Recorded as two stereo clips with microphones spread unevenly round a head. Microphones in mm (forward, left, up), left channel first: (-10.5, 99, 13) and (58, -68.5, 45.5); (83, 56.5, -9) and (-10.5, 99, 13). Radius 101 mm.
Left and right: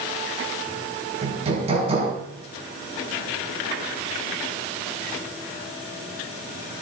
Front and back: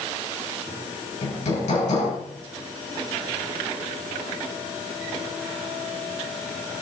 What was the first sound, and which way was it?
Hammering, 10° right.